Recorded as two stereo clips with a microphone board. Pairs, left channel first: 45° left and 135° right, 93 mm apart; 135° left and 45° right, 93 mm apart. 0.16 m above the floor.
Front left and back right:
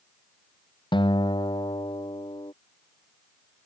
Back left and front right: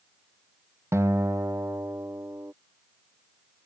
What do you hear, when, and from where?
0.9 s a guitar: 15° left